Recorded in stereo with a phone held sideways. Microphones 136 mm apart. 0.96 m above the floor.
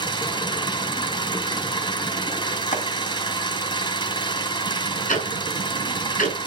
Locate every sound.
0.0 s an engine running: 35° left (ahead or behind), 2.5 m
2.7 s chopping: 70° left (ahead or behind), 1.7 m
5.1 s ticking: 85° left, 6 m